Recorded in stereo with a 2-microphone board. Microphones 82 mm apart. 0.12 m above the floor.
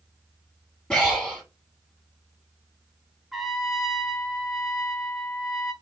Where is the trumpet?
5° right (ahead or behind), 0.7 m.